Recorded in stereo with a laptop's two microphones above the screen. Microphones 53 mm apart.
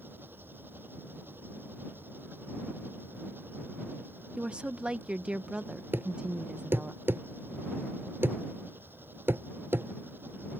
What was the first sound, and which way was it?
An engine running, 45° right (ahead or behind).